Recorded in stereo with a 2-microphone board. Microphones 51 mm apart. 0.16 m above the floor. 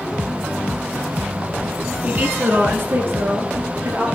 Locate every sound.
2.0 s a woman speaking: 30° right (ahead or behind), 1.7 m; by 4.0 s 65° right (ahead or behind), 3 m